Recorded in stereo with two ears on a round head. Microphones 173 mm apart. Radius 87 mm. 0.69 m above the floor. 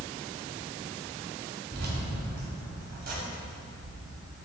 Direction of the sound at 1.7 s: 65° right (ahead or behind).